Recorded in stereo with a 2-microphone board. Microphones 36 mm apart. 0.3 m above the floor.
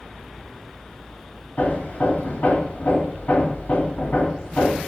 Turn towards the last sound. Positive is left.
turn(degrees=55)  # may be behind; listen again after turning